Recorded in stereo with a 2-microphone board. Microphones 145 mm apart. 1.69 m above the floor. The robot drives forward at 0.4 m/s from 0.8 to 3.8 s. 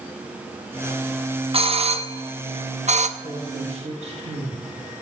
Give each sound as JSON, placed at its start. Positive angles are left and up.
{"t": 1.5, "sound": "a doorbell", "side_deg": -40, "distance_m": 1.1}
{"t": 3.2, "sound": "a man speaking", "side_deg": -50, "distance_m": 1.9}